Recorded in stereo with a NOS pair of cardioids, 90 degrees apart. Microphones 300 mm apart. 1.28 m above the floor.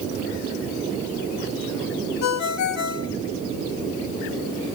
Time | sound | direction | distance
2.2 | a ringtone | 60° left | 1.5 m